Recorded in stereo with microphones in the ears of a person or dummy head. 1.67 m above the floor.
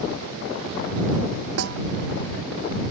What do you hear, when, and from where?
1.6 s a snare drum: 85° right